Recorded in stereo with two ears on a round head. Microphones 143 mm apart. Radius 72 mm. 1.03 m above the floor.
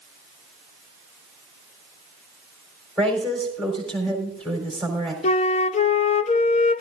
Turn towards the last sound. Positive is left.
turn(degrees=40)  # may be behind; listen again after turning